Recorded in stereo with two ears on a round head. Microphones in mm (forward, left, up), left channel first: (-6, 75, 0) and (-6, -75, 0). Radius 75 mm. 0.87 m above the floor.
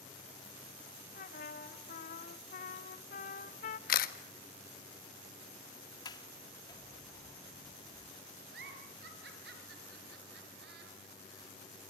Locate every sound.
1.1 s a trumpet: 50° left (ahead or behind), 1.6 m
3.9 s a camera shutter: 55° left (ahead or behind), 1.5 m
6.0 s a sliding door: 25° left (ahead or behind), 1.8 m
8.5 s a giggle: 65° right (ahead or behind), 5 m